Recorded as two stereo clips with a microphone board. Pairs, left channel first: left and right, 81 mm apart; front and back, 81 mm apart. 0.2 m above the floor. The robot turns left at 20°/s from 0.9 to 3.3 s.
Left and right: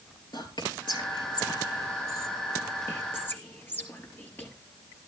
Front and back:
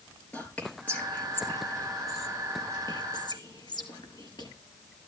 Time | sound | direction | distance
0.3 | whispering | 70° left | 3.5 m